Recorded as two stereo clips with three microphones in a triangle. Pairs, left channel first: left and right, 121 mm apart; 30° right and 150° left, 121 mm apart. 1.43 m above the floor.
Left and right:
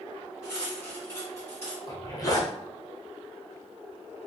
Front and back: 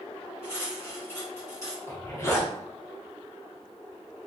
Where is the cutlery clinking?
30° left, 1.1 m.